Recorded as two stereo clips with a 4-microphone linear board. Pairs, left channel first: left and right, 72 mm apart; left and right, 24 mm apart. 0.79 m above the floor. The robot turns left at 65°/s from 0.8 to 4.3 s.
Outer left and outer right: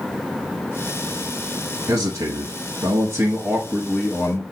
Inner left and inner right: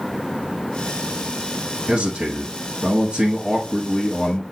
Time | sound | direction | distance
1.9 | a man speaking | 45° right | 1.1 m